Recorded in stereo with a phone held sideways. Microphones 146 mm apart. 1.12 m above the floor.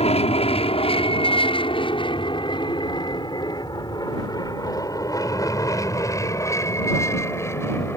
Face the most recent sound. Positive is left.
turn(degrees=15)  # may be behind; listen again after turning